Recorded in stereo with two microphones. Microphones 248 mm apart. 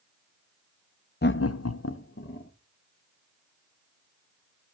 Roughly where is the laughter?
Left.